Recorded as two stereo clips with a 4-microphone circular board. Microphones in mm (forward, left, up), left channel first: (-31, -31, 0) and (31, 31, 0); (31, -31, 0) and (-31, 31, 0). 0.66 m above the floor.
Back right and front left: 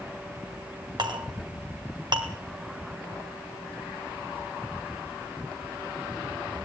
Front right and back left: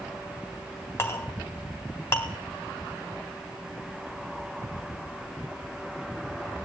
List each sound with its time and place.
1.0 s a clink: 15° left, 3 m